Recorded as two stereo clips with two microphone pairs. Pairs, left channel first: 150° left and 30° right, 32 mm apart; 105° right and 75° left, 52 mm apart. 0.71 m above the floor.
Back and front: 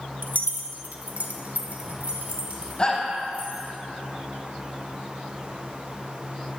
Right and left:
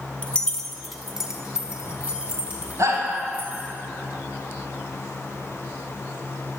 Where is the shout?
90° left, 4.5 m.